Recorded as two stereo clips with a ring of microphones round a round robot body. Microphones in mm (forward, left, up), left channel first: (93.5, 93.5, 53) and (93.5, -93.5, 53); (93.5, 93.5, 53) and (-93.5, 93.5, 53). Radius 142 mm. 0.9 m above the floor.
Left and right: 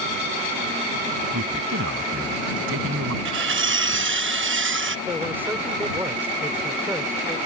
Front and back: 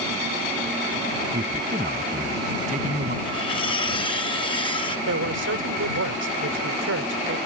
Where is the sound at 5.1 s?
170° right.